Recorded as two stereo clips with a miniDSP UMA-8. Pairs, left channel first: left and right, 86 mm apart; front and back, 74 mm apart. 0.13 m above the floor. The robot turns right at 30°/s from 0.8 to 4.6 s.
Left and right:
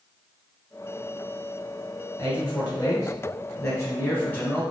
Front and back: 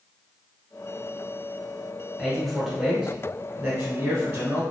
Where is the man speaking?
75° left, 1.2 m; by 4.6 s 145° left, 1.2 m.